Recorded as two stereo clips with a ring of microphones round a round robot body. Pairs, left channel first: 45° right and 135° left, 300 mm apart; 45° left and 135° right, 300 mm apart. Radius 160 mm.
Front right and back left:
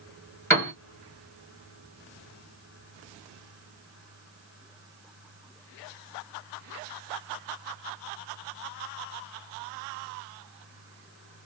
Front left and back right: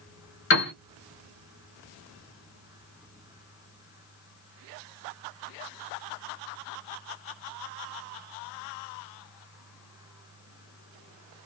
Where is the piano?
30° left, 1.7 m.